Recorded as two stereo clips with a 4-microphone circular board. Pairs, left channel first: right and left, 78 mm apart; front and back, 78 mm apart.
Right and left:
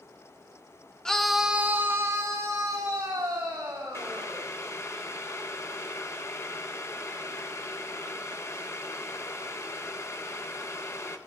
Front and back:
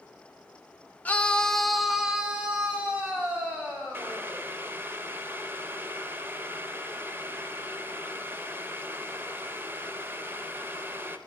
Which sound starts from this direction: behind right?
Boiling, at 3.9 s.